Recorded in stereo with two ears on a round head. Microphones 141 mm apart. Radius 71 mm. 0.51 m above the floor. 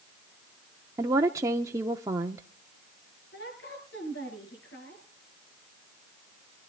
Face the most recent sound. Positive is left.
turn(degrees=80)